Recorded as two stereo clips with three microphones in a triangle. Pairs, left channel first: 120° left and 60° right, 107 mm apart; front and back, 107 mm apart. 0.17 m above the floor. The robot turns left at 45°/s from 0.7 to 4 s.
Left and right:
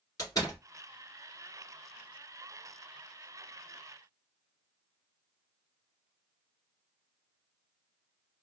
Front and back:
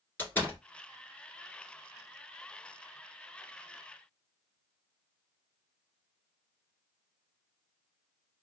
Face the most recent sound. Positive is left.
turn(degrees=-75)